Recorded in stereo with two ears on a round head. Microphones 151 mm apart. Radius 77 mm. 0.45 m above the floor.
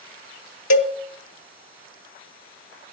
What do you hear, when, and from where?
0.7 s a cowbell: 80° left, 1.4 m